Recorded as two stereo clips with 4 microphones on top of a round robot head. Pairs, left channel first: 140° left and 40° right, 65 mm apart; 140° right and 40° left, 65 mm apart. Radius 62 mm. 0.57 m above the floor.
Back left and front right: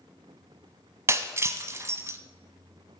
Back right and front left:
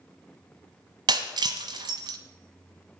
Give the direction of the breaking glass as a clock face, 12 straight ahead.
11 o'clock.